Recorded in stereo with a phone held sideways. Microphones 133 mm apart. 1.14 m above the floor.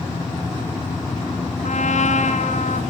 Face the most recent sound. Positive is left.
turn(degrees=65)  # may be behind; listen again after turning